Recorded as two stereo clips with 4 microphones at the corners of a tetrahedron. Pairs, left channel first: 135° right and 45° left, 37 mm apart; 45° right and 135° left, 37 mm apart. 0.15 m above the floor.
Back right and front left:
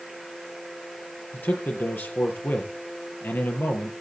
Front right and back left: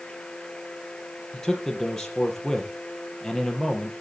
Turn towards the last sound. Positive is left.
turn(degrees=-125)